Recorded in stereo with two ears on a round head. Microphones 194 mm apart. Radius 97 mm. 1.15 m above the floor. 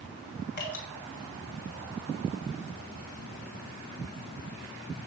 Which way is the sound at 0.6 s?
45° left (ahead or behind).